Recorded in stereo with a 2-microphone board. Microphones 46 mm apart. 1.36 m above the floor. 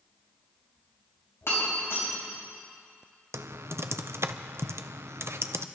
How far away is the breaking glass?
About 5 m.